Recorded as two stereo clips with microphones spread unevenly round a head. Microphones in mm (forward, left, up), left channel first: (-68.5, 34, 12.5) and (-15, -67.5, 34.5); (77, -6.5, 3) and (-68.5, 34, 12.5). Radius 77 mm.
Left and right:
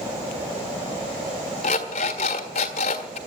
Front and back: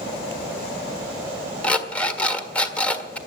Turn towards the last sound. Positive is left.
turn(degrees=65)